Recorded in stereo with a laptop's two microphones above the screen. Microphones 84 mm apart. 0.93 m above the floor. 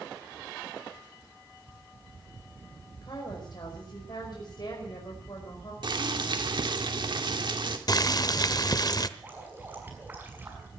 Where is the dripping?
20° right (ahead or behind), 6 m.